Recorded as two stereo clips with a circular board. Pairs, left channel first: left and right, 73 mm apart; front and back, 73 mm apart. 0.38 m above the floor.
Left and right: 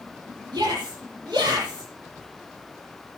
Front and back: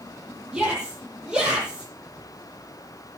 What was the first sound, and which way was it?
A shout, 100° right.